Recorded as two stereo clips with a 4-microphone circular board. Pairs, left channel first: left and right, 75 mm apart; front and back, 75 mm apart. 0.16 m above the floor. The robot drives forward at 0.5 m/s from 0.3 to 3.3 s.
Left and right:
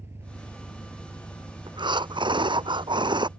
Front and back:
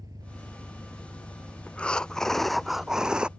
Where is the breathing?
75° right; by 3.3 s 100° right.